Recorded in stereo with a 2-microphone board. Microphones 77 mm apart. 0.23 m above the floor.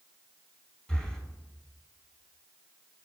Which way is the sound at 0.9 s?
15° left (ahead or behind).